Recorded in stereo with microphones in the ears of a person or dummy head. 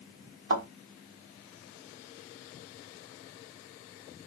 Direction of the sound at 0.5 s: 80° right.